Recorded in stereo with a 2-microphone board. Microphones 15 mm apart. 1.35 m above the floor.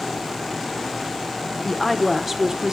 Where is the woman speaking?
15° left (ahead or behind), 1.2 m; by 2.7 s 50° right (ahead or behind), 1.3 m.